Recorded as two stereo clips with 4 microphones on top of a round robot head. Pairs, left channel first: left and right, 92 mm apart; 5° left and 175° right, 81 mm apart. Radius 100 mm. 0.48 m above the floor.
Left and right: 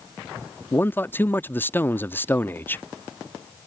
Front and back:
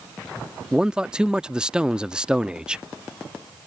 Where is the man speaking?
120° left.